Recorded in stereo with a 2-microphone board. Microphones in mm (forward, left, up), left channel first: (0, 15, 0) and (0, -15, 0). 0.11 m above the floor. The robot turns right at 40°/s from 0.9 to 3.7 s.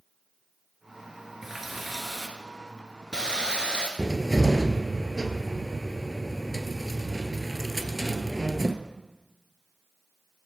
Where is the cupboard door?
Centre (ahead or behind), 0.6 m.